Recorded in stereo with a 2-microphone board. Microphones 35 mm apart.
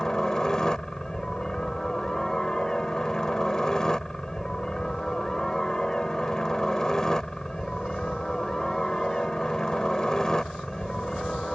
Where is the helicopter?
20° left (ahead or behind).